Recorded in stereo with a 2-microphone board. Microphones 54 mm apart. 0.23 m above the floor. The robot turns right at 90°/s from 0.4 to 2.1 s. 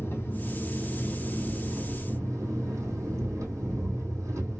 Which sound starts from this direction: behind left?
An engine running, at 0.0 s.